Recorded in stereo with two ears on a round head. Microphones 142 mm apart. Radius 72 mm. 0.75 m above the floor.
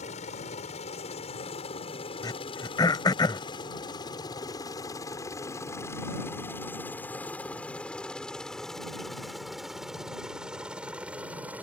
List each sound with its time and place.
0.0 s a helicopter: 45° left (ahead or behind); by 11.6 s 10° right (ahead or behind)
2.2 s throat clearing: 25° left (ahead or behind)